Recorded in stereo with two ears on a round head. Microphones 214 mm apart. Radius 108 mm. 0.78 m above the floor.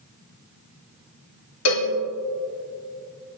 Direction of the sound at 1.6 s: 70° left (ahead or behind).